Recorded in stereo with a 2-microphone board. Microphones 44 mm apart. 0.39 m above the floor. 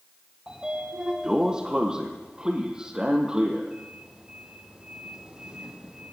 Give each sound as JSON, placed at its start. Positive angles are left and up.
{"t": 0.5, "sound": "a sliding door", "side_deg": -15, "distance_m": 2.5}